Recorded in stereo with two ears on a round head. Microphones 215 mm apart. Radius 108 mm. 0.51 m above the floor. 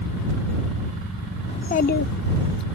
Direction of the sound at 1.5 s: 20° left (ahead or behind).